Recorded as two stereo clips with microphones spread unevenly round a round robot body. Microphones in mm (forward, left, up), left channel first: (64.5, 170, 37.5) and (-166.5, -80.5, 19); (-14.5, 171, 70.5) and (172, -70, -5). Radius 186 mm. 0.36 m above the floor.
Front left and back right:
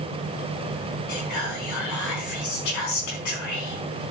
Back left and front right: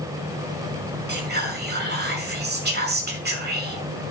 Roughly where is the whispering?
Ahead.